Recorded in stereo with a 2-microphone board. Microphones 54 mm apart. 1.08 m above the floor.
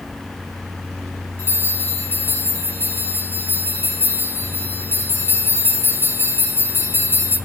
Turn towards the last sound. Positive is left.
turn(degrees=45)  # may be behind; listen again after turning